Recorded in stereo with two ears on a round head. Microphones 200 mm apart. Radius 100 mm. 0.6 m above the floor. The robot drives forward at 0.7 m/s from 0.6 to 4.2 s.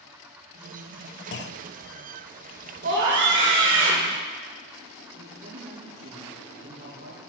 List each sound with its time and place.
1.3 s a clunk: 55° left (ahead or behind), 0.6 m; by 1.7 s 45° left (ahead or behind), 0.7 m
2.8 s a scream: 50° right (ahead or behind), 2 m; by 4.1 s 65° right (ahead or behind), 1.8 m
5.1 s a man speaking: 50° right (ahead or behind), 9 m